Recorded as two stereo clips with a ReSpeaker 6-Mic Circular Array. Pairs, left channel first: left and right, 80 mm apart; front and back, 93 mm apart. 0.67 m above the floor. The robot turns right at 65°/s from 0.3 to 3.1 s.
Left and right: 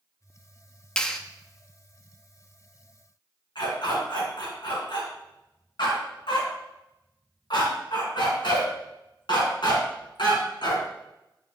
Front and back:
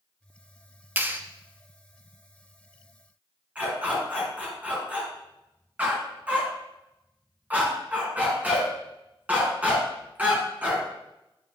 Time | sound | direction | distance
1.0 | a clap | 155° left | 0.5 m
3.5 | a dog barking | 105° left | 2 m